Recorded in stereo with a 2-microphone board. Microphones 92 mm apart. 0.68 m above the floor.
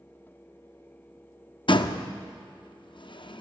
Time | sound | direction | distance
1.7 | a door slam | 60° left (ahead or behind) | 0.6 m